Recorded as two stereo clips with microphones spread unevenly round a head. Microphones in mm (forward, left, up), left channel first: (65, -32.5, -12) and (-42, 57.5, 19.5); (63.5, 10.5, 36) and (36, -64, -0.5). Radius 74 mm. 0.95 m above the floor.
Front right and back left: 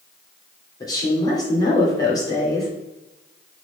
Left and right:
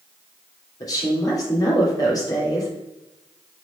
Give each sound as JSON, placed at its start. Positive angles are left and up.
{"t": 0.8, "sound": "a woman speaking", "azimuth_deg": 20, "distance_m": 3.0}